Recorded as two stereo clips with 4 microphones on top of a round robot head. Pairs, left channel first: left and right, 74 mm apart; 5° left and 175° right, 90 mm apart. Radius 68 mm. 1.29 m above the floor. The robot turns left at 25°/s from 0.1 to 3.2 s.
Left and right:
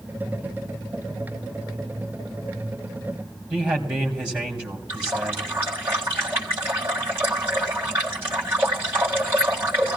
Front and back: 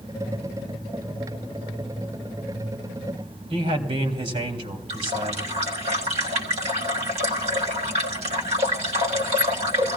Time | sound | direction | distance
3.5 | a man speaking | 165° right | 3 m
4.9 | a running tap | 160° right | 1.6 m